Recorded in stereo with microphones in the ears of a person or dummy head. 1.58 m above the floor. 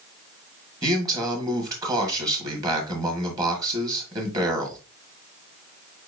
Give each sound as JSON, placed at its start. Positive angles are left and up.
{"t": 0.8, "sound": "a man speaking", "side_deg": -20, "distance_m": 1.8}